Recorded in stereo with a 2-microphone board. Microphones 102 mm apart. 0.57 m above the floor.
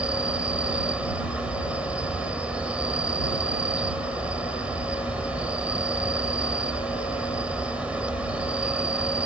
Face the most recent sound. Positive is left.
turn(degrees=-10)  # may be behind; listen again after turning